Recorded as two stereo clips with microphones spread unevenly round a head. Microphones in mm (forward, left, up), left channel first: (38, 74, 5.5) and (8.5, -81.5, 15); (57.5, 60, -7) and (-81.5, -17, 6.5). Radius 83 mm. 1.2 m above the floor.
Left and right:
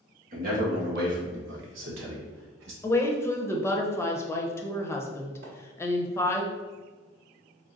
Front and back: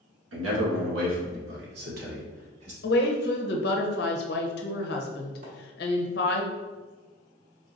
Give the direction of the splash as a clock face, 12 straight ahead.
4 o'clock.